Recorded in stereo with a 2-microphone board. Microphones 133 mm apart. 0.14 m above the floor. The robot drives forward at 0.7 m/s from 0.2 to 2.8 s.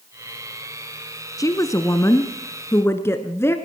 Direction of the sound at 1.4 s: 25° left (ahead or behind).